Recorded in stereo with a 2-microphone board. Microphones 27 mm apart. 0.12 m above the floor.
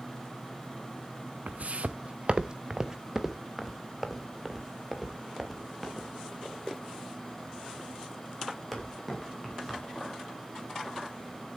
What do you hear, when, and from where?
1.5 s footsteps: 70° right (ahead or behind), 0.6 m; by 11.6 s 5° left (ahead or behind), 6.5 m